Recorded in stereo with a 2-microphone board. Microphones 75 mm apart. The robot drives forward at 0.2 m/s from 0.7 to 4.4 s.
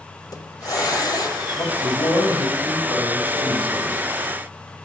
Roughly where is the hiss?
Left.